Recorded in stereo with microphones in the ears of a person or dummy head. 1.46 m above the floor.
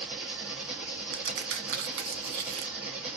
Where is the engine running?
Centre (ahead or behind), 1.0 m.